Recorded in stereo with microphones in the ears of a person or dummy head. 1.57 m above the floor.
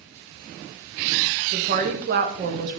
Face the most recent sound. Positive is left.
turn(degrees=-45)  # may be behind; listen again after turning